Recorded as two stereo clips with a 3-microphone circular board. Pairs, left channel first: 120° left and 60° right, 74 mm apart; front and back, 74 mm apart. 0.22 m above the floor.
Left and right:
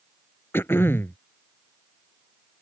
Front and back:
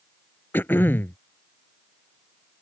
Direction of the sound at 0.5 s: 60° left.